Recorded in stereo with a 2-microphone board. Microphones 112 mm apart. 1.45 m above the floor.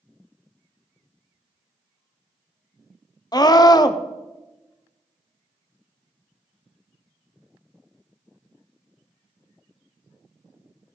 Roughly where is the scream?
Left.